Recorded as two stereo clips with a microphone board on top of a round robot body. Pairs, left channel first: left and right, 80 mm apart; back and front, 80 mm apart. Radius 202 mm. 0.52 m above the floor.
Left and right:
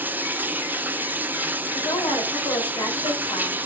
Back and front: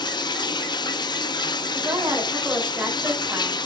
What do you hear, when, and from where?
0.0 s running water: 155° right, 0.9 m
1.7 s a woman speaking: 65° left, 3 m